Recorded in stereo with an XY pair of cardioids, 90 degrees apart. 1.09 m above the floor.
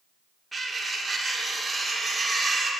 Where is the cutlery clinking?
20° right, 1.8 m.